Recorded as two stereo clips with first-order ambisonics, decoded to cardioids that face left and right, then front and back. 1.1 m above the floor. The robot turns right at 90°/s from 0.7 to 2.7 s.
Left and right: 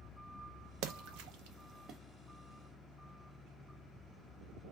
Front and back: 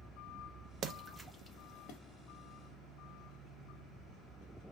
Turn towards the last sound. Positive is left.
turn(degrees=45)